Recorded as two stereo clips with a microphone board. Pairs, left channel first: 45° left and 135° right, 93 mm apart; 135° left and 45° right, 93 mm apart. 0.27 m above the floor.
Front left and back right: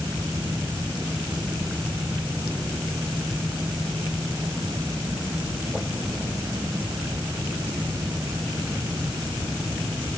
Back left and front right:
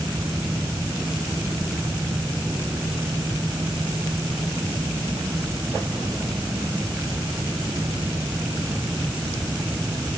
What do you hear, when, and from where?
Only background noise.